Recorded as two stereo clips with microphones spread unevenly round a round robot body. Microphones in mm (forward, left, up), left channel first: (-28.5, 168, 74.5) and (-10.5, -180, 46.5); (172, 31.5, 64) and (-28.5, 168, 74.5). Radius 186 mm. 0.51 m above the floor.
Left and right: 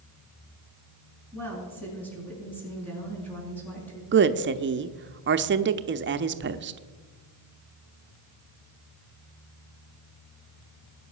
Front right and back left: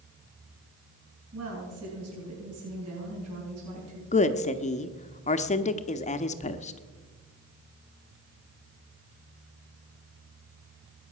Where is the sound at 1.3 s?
Straight behind, 6.5 m.